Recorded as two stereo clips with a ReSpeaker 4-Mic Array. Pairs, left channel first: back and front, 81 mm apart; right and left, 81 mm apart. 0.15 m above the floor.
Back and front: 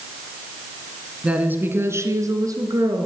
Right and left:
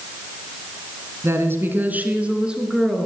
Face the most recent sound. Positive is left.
turn(degrees=5)